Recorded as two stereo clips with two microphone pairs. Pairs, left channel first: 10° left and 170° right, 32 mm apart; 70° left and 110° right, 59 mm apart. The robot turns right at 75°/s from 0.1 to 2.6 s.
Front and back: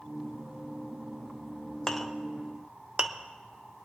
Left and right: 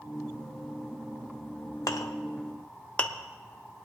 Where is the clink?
80° left, 0.8 m; by 3.1 s 135° left, 0.8 m.